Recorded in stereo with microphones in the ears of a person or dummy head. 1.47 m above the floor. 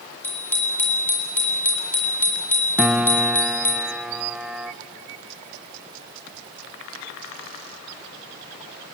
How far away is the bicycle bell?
About 3.5 m.